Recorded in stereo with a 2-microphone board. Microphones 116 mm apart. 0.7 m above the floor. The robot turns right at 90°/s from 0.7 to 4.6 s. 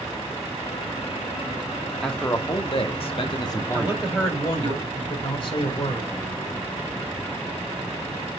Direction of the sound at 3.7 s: 25° right.